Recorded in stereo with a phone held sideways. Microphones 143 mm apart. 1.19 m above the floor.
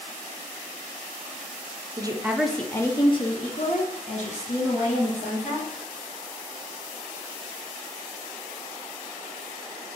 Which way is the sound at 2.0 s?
30° right (ahead or behind).